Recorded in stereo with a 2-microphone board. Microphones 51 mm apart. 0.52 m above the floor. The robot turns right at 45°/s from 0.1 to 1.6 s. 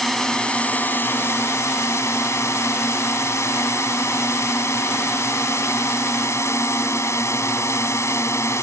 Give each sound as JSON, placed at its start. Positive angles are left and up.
{"t": 0.0, "sound": "a drone", "azimuth_deg": 5}